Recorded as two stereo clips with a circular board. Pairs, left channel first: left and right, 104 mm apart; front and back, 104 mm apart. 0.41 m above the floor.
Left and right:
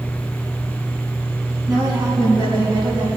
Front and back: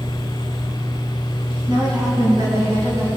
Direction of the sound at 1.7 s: 140° right.